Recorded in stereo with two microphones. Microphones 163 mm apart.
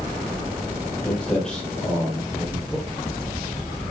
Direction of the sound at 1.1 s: 5° left (ahead or behind).